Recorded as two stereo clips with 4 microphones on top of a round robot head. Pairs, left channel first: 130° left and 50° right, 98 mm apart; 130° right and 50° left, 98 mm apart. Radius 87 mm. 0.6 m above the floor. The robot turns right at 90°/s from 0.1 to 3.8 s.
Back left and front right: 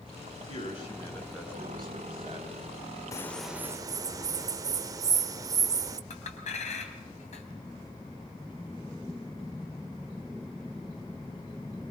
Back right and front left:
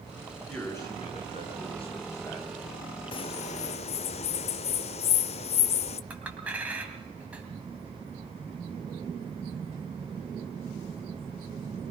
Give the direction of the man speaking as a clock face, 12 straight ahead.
7 o'clock.